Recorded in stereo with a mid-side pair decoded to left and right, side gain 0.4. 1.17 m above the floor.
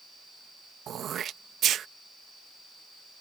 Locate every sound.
0.9 s throat clearing: 65° right